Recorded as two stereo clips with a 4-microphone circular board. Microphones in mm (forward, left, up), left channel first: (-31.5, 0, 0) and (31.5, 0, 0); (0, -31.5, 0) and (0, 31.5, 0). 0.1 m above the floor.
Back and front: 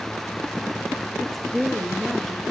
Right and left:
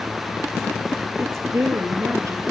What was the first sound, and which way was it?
A woman speaking, 90° left.